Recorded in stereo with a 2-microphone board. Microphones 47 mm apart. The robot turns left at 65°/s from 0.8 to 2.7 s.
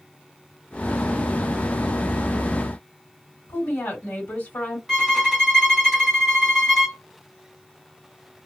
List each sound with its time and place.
3.5 s a woman speaking: 40° left (ahead or behind), 1.5 m
4.9 s a violin: centre (ahead or behind), 1.3 m